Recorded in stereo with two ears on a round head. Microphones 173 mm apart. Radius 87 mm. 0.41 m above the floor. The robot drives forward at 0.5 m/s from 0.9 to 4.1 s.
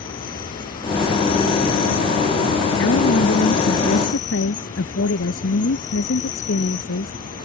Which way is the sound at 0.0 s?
50° left (ahead or behind).